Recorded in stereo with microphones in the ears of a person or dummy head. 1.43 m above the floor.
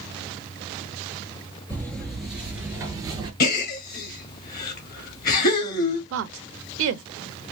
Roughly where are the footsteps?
Centre.